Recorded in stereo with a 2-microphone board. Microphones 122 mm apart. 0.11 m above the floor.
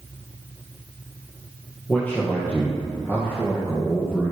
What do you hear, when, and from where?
1.9 s a man speaking: 10° left (ahead or behind), 3.5 m; by 4.3 s 20° left (ahead or behind), 2.5 m